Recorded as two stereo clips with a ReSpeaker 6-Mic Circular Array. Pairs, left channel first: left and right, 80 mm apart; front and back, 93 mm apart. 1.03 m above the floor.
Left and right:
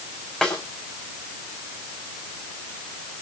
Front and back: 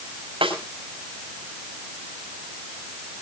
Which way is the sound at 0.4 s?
170° left.